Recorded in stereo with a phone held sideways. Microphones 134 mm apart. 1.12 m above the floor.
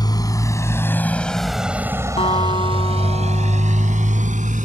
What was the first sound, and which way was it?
A motorcycle, 30° left (ahead or behind).